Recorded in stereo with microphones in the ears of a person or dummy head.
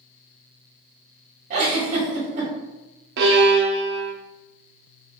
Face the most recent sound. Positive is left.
turn(degrees=-65)  # may be behind; listen again after turning